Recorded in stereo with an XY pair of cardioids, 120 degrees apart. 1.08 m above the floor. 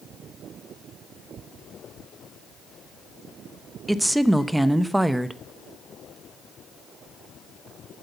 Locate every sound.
3.9 s a woman speaking: 5° right, 0.8 m